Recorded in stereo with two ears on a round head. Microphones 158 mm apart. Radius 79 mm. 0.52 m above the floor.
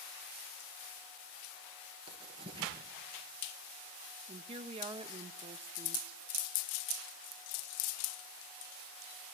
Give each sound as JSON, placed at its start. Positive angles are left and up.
{"t": 2.1, "sound": "writing", "side_deg": -30, "distance_m": 5.0}
{"t": 4.3, "sound": "a woman speaking", "side_deg": -30, "distance_m": 0.8}